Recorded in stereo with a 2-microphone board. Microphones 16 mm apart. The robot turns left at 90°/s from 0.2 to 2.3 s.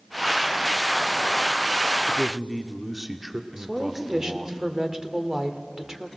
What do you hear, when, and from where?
2.1 s a man speaking: 5° right (ahead or behind), 1.1 m; by 4.6 s 10° right (ahead or behind), 1.1 m
3.6 s a woman speaking: 30° right (ahead or behind), 1.7 m